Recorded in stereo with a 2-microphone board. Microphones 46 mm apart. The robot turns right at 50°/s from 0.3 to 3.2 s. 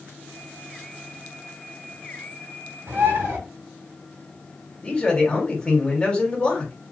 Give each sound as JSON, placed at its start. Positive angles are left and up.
{"t": 2.9, "sound": "a bird", "side_deg": -80, "distance_m": 1.6}
{"t": 4.8, "sound": "a man speaking", "side_deg": 25, "distance_m": 1.4}